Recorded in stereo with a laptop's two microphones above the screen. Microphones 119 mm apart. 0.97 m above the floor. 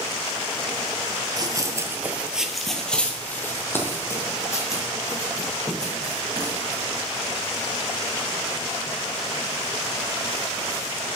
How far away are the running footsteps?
About 1.1 m.